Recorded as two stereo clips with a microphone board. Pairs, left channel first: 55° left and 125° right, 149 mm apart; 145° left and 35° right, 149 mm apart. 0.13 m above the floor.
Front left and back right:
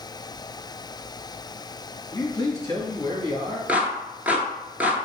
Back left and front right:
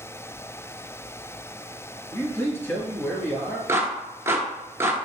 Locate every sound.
2.1 s a man speaking: 90° left, 1.6 m
3.7 s a clap: 65° right, 0.9 m